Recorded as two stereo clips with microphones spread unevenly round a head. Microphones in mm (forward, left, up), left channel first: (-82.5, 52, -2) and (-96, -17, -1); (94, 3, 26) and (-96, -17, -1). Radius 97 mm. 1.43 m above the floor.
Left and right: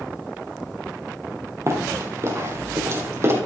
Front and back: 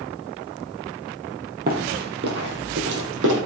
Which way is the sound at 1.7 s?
135° right.